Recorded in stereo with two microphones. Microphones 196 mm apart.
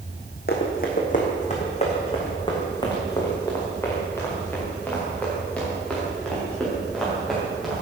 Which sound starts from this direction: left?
Running footsteps, at 0.5 s.